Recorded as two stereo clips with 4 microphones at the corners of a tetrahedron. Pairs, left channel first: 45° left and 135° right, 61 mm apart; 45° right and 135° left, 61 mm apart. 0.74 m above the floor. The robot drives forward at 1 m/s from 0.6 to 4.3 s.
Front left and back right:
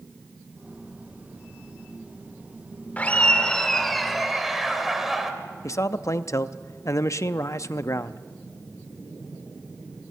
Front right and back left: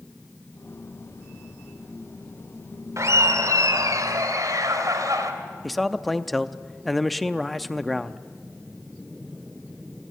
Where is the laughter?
110° left, 1.8 m; by 5.3 s 140° left, 2.5 m.